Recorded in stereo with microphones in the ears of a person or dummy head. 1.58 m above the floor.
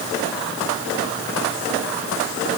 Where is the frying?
I don't hear frying.